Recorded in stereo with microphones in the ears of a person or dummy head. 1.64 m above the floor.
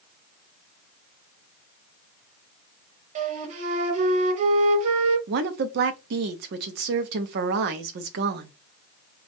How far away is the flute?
About 0.7 m.